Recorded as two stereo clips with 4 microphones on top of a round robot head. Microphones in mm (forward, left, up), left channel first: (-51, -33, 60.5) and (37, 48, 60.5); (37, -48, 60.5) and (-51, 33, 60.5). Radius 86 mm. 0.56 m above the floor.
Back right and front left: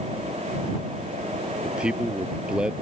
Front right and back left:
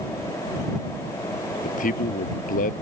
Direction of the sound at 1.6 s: 40° right.